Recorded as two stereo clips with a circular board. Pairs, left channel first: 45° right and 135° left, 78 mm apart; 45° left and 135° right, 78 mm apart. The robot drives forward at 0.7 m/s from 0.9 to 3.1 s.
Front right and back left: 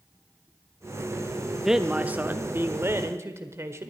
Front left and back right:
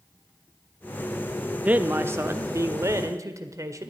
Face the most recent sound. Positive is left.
turn(degrees=-175)